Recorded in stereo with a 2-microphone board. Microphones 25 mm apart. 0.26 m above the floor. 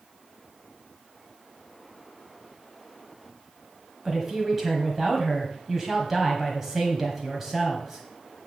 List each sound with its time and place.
4.0 s a woman speaking: 15° right (ahead or behind), 1.2 m